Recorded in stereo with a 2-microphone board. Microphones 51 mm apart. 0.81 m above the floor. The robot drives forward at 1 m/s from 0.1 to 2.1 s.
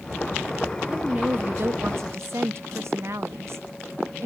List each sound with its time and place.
0.9 s a woman speaking: 25° right (ahead or behind), 1.3 m; by 4.3 s 60° right (ahead or behind), 0.7 m